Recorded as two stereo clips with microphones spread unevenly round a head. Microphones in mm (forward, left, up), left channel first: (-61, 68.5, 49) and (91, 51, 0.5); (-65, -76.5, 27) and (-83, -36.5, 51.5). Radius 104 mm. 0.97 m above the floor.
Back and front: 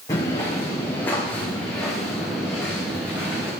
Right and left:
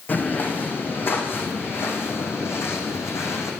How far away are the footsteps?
About 3.5 m.